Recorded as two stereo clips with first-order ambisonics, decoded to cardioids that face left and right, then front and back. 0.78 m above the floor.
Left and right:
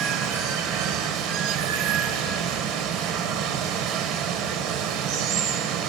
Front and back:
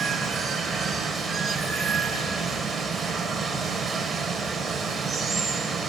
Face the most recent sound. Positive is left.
turn(degrees=-105)